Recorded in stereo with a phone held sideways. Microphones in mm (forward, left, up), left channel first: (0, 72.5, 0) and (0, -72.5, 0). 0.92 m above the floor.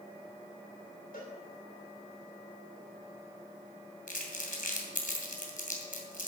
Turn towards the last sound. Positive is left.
turn(degrees=70)  # may be behind; listen again after turning